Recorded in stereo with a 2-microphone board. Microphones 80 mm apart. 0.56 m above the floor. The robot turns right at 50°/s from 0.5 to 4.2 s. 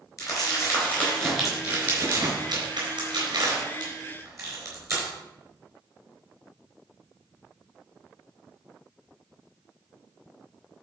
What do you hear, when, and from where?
0.2 s crumpling: 45° left (ahead or behind), 4 m; by 5.1 s 40° right (ahead or behind), 4 m